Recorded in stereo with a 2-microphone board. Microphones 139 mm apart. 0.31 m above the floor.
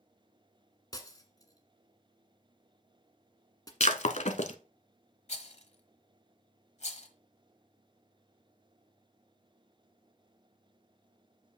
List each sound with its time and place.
0.9 s breaking glass: 25° left (ahead or behind), 1.4 m
3.8 s breaking glass: 60° left (ahead or behind), 0.7 m
5.3 s a rattle: 55° left (ahead or behind), 1.2 m